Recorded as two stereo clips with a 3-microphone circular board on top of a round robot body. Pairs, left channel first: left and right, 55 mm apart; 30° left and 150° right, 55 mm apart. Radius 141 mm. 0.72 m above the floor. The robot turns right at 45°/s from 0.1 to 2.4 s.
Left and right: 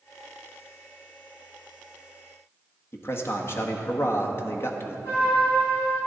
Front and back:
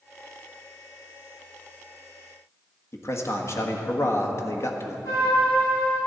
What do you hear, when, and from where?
2.9 s a man speaking: 55° left, 1.4 m
5.0 s a trumpet: 50° left, 4 m